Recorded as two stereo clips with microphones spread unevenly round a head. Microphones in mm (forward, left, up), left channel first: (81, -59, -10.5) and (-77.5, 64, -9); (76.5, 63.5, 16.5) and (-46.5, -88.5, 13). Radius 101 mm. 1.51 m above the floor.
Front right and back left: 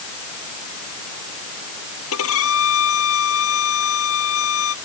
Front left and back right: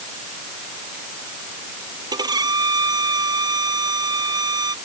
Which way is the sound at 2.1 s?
60° right.